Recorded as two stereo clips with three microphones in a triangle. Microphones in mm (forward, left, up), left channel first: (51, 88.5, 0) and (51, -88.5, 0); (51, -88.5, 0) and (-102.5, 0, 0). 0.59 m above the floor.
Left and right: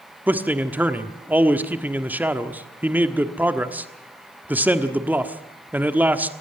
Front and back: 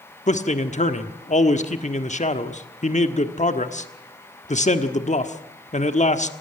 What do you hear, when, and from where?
0.3 s a man speaking: 15° right, 1.3 m